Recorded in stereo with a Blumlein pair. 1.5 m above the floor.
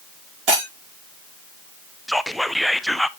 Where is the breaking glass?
40° right, 6 m.